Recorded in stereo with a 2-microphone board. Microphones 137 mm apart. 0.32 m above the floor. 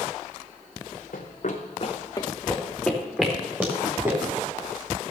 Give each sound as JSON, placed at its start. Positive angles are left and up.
{"t": 1.1, "sound": "running footsteps", "side_deg": 75, "distance_m": 1.6}